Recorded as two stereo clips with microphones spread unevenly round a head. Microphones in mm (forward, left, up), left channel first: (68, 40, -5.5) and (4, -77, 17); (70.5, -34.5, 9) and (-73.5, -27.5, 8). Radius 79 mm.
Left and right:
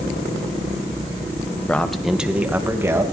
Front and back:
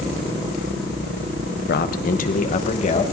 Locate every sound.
1.7 s a man speaking: 20° right, 1.3 m; by 3.0 s 50° right, 2.5 m